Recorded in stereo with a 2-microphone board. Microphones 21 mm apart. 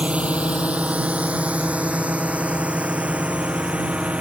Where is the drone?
70° right (ahead or behind); by 4.2 s 75° right (ahead or behind).